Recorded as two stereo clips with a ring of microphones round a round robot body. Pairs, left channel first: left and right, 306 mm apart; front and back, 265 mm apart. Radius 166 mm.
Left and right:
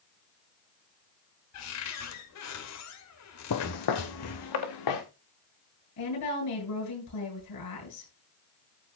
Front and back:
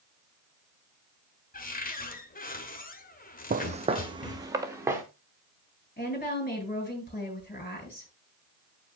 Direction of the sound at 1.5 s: 55° left.